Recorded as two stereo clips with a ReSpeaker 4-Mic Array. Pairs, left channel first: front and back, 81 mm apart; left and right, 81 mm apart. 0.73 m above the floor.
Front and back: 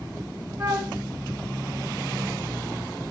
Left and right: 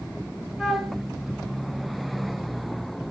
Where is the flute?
Straight behind, 0.6 m.